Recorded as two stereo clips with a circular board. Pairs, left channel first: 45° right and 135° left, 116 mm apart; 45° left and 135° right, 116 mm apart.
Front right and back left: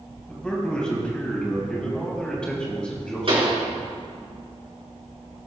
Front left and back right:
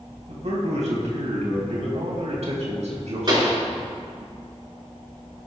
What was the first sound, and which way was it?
A man speaking, 125° right.